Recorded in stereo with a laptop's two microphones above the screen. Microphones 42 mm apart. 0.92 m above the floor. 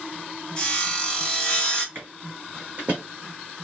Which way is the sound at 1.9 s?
55° right (ahead or behind).